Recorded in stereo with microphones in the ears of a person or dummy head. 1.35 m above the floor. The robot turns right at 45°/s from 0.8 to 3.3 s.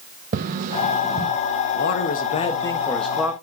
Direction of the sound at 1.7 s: 120° left.